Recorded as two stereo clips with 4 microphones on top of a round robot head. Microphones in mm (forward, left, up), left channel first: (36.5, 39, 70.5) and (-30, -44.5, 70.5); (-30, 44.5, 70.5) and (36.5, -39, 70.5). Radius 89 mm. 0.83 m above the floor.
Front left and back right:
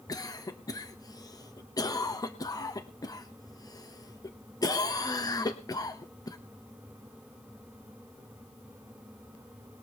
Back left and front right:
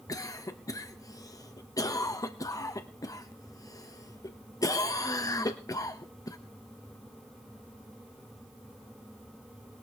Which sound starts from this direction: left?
A cough, at 0.1 s.